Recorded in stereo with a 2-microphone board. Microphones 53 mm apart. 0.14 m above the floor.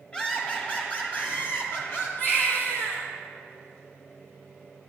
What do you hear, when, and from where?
0.1 s laughter: 20° left (ahead or behind), 2.5 m; by 2.1 s 50° left (ahead or behind), 3.5 m
2.2 s a baby crying: 45° left (ahead or behind), 2.5 m